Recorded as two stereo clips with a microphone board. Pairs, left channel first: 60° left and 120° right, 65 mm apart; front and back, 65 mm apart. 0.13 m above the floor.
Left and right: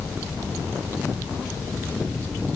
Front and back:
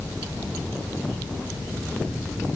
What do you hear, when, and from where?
Only background noise.